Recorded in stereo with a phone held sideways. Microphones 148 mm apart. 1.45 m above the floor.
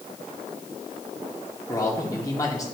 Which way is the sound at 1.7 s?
25° left (ahead or behind).